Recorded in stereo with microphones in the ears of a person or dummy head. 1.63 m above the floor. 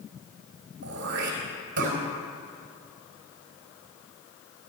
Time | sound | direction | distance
0.8 | throat clearing | 60° right (ahead or behind) | 4 m